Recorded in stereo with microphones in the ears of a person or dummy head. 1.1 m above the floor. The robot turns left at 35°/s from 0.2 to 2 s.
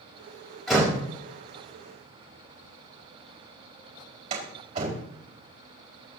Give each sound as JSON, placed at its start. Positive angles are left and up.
{"t": 0.7, "sound": "a door slam", "side_deg": 0, "distance_m": 4.5}